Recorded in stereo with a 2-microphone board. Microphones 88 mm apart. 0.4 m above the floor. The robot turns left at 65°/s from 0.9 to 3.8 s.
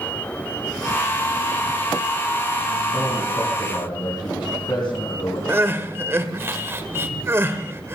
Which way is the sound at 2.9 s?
170° left.